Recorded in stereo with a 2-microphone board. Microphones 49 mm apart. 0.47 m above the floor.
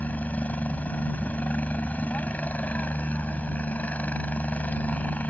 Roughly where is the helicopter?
Left.